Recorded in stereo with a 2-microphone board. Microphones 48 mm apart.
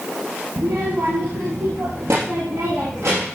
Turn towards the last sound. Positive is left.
turn(degrees=-70)  # may be behind; listen again after turning